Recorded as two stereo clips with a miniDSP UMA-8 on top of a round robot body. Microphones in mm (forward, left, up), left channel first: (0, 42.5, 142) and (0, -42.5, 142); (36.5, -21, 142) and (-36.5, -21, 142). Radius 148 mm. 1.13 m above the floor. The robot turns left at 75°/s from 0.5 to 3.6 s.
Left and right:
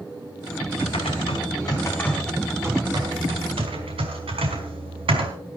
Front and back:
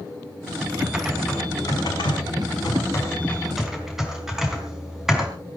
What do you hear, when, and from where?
0.8 s typing on a keyboard: 115° left, 4 m; by 5.3 s 95° right, 4 m